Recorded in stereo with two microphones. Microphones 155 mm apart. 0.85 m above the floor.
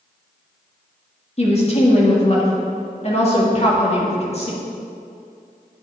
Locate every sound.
1.4 s a woman speaking: 40° left (ahead or behind), 1.7 m